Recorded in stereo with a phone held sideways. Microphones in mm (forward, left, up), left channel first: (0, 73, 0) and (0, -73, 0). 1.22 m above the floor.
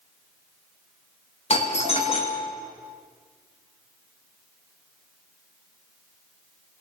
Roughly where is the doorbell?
Left.